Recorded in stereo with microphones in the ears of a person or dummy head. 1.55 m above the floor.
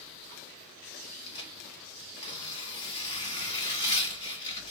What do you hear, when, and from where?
1.3 s tearing paper: 20° left (ahead or behind), 1.6 m